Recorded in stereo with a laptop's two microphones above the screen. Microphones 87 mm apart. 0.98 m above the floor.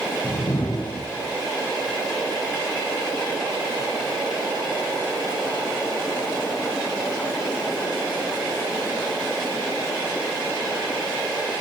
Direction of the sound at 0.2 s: 55° left (ahead or behind).